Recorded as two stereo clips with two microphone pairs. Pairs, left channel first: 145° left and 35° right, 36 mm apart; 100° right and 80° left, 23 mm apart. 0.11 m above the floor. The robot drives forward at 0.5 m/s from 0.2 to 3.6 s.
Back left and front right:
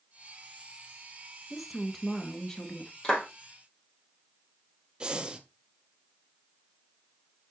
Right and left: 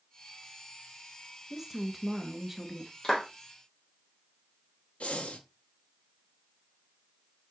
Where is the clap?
155° right, 3 m.